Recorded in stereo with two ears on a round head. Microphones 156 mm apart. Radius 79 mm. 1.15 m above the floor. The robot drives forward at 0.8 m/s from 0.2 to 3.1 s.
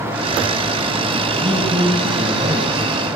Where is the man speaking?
20° right (ahead or behind), 7 m.